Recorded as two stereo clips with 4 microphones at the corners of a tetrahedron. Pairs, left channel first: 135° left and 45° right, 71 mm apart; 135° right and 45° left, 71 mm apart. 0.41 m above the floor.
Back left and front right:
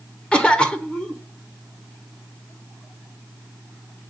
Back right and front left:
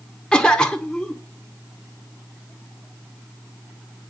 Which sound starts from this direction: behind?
A cough, at 0.3 s.